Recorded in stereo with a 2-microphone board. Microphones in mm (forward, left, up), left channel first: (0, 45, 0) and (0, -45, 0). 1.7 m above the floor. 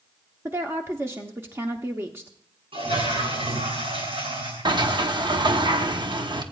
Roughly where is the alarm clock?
No alarm clock in this recording.